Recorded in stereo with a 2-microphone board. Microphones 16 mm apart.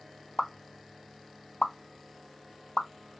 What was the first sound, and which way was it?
A pop, 50° left (ahead or behind).